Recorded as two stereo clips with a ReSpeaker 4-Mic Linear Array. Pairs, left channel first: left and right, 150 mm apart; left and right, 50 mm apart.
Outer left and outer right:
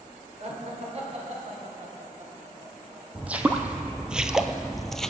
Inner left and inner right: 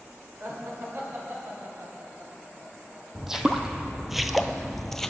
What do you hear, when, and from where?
0.4 s laughter: 45° right (ahead or behind), 2.5 m; by 3.0 s 50° right (ahead or behind), 5 m
3.1 s footsteps: 10° right (ahead or behind), 1.0 m; by 5.1 s 5° left (ahead or behind), 0.7 m